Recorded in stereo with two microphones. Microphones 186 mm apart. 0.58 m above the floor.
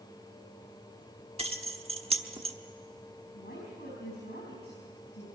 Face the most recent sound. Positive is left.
turn(degrees=65)  # may be behind; listen again after turning